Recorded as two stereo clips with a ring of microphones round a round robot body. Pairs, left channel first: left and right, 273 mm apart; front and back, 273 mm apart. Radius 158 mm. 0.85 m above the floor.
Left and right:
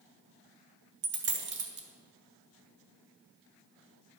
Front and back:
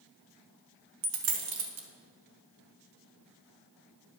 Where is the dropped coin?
140° right, 1.3 m.